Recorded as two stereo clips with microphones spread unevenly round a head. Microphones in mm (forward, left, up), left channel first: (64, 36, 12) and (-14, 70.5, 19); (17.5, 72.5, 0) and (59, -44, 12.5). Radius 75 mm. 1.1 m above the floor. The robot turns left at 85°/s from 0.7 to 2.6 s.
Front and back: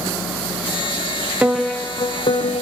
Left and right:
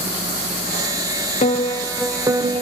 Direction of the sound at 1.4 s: 75° left.